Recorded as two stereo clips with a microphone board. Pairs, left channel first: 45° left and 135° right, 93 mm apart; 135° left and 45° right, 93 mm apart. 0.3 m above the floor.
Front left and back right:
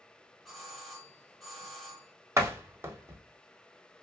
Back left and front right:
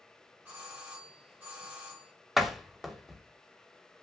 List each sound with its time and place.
0.5 s a doorbell: 40° right, 1.3 m
2.4 s a door slam: 130° right, 0.6 m